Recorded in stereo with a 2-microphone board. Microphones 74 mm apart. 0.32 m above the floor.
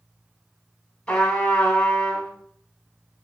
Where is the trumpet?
15° left (ahead or behind), 1.0 m.